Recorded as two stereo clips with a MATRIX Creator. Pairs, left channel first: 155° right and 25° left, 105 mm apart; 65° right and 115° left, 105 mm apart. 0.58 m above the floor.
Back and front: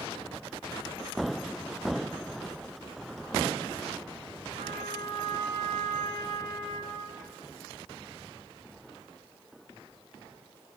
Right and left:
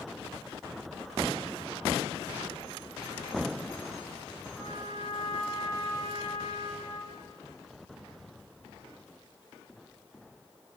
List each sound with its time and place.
4.5 s a trumpet: 25° left, 6 m